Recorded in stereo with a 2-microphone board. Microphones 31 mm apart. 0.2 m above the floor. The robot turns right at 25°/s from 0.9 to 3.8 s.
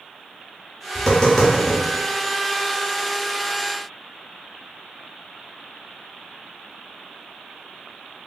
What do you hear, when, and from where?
0.9 s tapping: 20° left (ahead or behind), 1.4 m; by 1.8 s 5° left (ahead or behind), 1.4 m